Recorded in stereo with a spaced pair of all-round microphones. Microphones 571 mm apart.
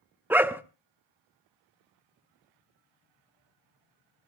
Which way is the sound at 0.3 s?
5° right (ahead or behind).